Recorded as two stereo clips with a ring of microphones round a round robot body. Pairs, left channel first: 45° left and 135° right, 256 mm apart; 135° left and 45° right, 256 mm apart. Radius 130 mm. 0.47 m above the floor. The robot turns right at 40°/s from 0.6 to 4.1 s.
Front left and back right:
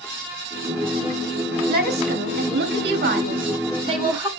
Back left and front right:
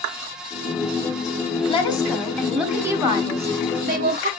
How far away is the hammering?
No hammering in this recording.